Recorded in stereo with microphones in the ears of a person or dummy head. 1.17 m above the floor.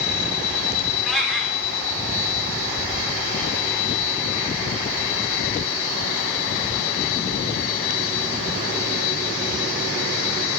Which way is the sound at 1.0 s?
Centre (ahead or behind).